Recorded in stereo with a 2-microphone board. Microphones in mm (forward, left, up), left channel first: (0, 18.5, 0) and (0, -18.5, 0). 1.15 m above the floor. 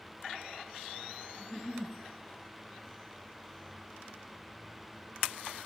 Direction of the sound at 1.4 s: 30° left (ahead or behind).